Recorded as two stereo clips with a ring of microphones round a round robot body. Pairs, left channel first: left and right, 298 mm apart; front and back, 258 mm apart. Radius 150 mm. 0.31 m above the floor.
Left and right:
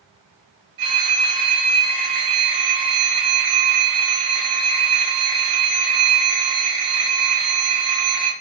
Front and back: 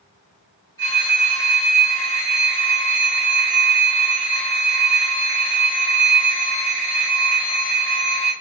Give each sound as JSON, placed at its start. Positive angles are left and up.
{"t": 0.8, "sound": "a phone ringing", "azimuth_deg": -80, "distance_m": 1.8}